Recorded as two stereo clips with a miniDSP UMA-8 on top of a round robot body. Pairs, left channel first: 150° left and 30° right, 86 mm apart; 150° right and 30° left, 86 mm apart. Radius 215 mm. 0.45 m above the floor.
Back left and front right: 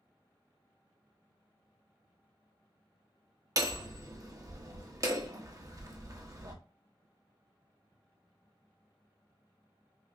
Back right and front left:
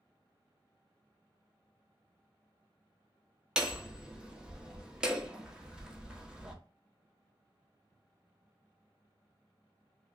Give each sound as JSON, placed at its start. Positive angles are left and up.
{"t": 3.6, "sound": "hammering", "azimuth_deg": -45, "distance_m": 1.3}